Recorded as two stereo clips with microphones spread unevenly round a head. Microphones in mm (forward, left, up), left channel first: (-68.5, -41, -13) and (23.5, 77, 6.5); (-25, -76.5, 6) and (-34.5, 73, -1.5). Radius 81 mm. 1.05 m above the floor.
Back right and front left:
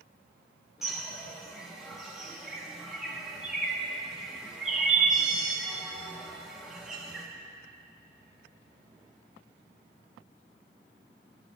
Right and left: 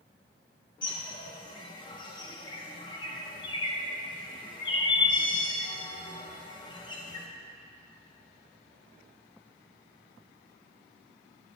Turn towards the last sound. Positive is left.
turn(degrees=-30)